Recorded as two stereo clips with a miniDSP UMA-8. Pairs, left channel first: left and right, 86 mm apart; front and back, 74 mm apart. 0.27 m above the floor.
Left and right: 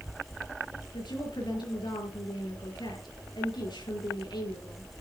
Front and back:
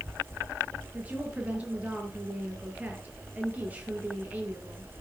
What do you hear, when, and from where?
0.9 s a woman speaking: 110° left, 5.5 m